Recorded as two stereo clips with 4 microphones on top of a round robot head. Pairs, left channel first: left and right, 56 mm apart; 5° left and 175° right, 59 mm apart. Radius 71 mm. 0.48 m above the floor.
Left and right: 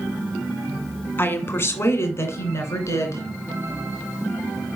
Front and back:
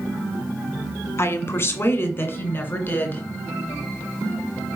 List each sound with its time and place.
1.2 s a woman speaking: 45° left, 1.5 m; by 3.2 s 65° left, 2.5 m